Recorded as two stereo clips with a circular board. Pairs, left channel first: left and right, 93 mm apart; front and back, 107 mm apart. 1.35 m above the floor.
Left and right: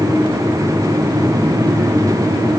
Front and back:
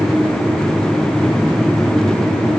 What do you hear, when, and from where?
Only background noise.